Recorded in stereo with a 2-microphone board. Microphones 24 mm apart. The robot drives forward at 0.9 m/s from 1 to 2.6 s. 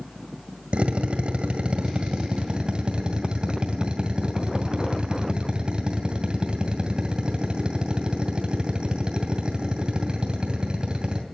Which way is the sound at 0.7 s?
60° right (ahead or behind).